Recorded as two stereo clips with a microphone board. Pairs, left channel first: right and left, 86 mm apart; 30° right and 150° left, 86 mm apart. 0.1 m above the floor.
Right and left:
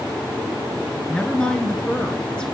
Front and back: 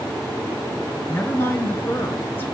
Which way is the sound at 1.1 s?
30° right.